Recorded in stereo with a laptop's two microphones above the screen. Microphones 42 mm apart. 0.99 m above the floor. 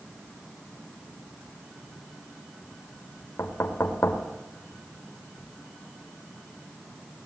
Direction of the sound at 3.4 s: 80° left.